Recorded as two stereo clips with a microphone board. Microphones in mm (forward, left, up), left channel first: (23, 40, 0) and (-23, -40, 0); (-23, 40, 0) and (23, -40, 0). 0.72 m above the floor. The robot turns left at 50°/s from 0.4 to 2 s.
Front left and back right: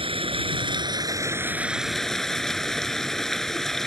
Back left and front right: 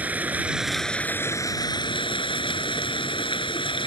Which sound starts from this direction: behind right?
Running water, at 0.0 s.